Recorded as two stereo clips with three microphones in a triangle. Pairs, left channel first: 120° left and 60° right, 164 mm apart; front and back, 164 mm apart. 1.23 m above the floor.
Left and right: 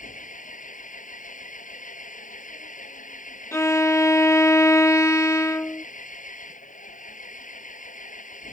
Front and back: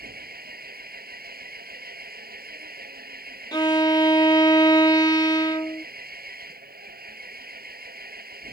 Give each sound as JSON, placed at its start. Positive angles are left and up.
{"t": 0.0, "sound": "an engine running", "azimuth_deg": 160}
{"t": 3.5, "sound": "a violin", "azimuth_deg": 55}